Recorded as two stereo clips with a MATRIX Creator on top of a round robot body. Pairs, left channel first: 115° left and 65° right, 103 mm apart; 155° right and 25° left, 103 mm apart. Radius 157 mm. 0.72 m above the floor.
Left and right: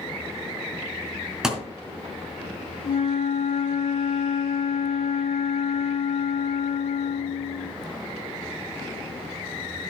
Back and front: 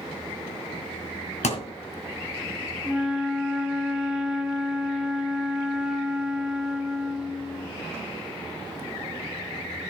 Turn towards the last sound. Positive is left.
turn(degrees=110)